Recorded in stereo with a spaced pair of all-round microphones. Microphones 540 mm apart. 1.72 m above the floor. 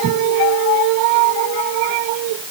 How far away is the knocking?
No knocking in this recording.